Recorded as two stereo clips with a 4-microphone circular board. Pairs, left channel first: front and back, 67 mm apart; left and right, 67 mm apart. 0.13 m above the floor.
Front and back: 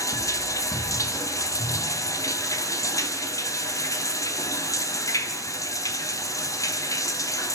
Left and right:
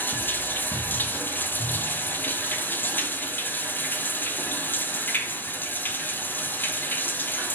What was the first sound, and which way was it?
Running water, 30° left.